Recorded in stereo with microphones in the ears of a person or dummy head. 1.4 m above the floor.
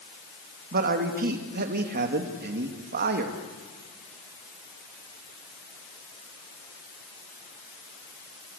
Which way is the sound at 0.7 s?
55° right (ahead or behind).